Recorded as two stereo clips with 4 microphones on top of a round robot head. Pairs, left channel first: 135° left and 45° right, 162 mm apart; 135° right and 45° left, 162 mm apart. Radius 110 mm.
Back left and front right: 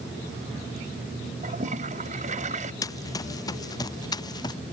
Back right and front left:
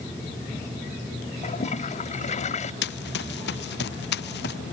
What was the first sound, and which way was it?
A toilet flushing, 90° right.